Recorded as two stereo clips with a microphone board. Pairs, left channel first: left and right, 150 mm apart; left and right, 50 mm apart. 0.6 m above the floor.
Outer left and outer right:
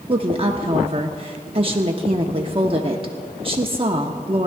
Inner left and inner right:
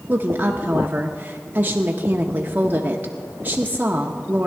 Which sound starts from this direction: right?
A woman speaking, at 0.1 s.